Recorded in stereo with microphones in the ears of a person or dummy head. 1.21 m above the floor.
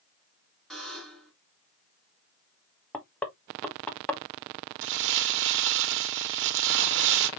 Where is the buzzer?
Centre (ahead or behind), 2 m.